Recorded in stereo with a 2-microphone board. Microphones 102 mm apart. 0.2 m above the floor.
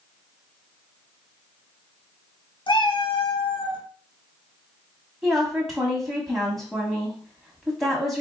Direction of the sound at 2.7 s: 55° left (ahead or behind).